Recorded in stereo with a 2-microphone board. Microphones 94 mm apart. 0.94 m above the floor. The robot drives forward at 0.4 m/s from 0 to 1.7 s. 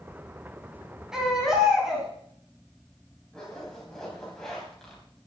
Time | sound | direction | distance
1.1 | a baby crying | 5° right (ahead or behind) | 3.5 m
3.3 | a zipper | 5° left (ahead or behind) | 4 m